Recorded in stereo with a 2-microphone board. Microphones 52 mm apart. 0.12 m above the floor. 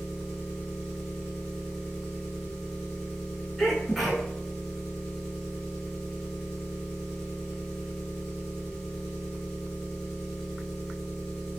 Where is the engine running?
10° left (ahead or behind), 2.0 m.